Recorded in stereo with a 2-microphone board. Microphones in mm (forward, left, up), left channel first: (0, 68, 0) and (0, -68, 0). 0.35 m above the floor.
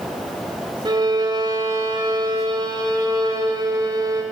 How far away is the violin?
About 0.9 m.